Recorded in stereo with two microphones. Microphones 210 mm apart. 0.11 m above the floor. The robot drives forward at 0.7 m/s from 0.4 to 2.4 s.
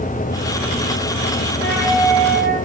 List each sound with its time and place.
1.6 s a flute: 50° right (ahead or behind), 8 m